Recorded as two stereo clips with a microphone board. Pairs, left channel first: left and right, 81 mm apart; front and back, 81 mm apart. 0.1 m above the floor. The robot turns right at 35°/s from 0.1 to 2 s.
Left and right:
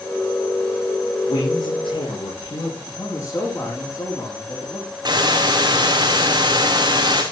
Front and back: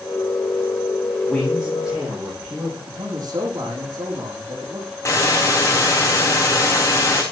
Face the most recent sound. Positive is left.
turn(degrees=-55)